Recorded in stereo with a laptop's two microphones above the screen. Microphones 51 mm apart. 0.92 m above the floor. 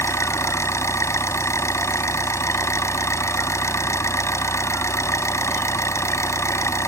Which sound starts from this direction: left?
An engine running, at 0.0 s.